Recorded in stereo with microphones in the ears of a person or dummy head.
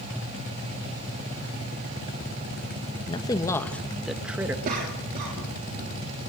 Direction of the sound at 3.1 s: 25° left (ahead or behind).